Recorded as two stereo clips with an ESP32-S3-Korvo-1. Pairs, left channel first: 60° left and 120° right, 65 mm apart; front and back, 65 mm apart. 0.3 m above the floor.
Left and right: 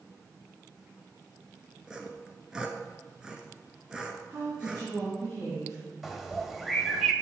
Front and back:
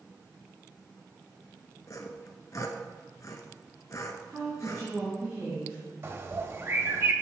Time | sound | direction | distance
1.9 | sawing | 40° right | 0.9 m
4.3 | a woman speaking | 125° right | 3 m
6.0 | a bird | 155° left | 0.8 m